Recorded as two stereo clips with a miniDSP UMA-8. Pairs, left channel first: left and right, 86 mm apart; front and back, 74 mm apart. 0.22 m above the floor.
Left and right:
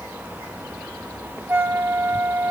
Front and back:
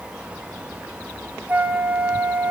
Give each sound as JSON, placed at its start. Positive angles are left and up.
{"t": 1.5, "sound": "a flute", "azimuth_deg": -135, "distance_m": 0.7}